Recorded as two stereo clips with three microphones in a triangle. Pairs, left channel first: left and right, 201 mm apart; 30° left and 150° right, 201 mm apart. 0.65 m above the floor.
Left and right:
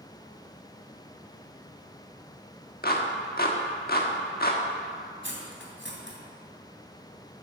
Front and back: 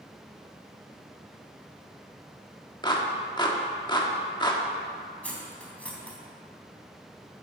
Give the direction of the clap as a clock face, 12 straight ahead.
9 o'clock.